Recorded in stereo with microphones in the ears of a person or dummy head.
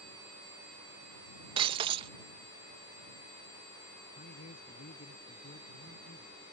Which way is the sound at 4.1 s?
45° left (ahead or behind).